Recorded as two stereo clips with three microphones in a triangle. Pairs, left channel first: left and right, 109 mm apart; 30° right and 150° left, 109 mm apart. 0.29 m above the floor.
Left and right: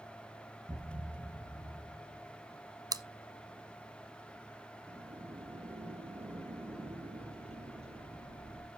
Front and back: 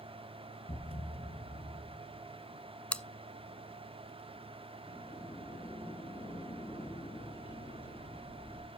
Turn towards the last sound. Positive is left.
turn(degrees=-65)